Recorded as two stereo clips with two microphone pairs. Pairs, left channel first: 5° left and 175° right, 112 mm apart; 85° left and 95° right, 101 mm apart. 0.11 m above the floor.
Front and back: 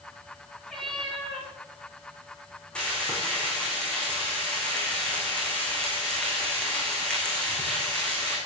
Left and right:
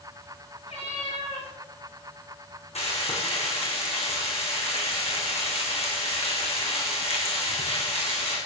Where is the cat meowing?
90° left, 8 m.